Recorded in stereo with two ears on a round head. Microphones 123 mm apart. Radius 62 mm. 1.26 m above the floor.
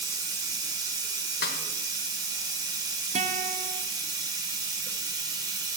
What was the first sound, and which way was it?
Running water, 30° right (ahead or behind).